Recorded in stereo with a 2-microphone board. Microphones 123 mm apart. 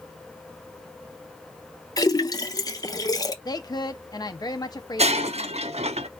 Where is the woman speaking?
35° left (ahead or behind), 0.9 m.